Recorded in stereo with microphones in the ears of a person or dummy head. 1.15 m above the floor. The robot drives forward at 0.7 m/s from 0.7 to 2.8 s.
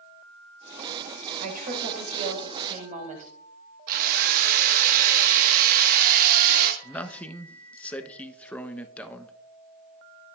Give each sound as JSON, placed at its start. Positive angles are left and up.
{"t": 1.4, "sound": "a woman speaking", "side_deg": -45, "distance_m": 4.5}
{"t": 3.9, "sound": "a drill", "side_deg": -50, "distance_m": 1.4}
{"t": 6.8, "sound": "a man speaking", "side_deg": 5, "distance_m": 0.9}